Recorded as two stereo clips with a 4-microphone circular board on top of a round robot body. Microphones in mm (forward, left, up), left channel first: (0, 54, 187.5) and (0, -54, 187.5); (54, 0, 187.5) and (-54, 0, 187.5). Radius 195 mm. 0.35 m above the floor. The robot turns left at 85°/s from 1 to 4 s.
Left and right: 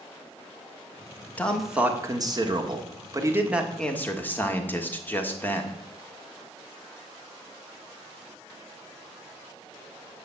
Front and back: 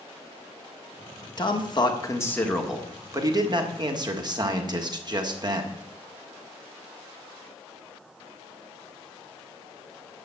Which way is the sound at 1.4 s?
20° left.